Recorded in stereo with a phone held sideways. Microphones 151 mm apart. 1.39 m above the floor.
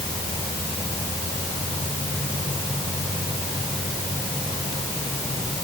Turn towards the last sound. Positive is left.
No sound to turn to.